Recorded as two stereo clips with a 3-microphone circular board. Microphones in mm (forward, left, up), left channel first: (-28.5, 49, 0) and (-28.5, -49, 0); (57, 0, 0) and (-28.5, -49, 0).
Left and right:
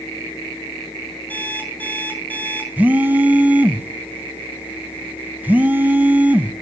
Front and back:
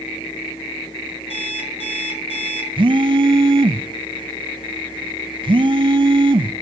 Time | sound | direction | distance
1.3 | an alarm clock | 15° left | 6 m
2.8 | a phone buzzing | 160° right | 1.2 m